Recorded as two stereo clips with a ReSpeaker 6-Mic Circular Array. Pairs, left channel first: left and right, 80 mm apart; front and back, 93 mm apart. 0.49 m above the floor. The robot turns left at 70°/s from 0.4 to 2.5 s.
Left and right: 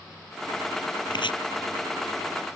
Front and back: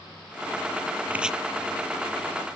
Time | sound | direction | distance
1.1 | chopping | 110° left | ?